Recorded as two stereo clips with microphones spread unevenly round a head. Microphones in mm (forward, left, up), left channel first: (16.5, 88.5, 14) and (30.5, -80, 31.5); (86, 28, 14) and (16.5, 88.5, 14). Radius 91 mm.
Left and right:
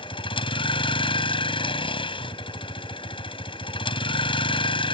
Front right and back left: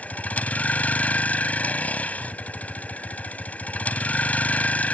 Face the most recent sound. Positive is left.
turn(degrees=35)